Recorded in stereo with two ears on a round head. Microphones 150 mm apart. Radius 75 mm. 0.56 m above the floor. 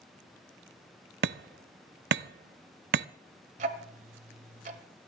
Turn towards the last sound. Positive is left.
turn(degrees=-50)  # may be behind; listen again after turning